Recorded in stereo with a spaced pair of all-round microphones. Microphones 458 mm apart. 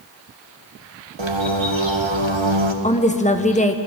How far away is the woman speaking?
About 1.1 m.